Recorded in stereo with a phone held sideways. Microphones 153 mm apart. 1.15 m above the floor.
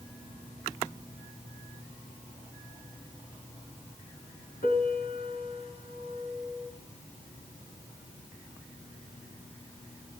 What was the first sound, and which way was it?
A piano, 75° left (ahead or behind).